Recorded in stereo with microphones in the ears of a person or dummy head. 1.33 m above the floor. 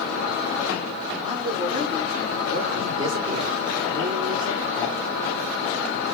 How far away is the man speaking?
About 0.9 m.